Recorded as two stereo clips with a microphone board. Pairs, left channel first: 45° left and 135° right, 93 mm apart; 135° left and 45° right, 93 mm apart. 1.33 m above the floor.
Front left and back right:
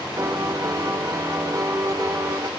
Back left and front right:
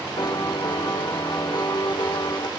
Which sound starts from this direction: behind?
A piano, at 0.2 s.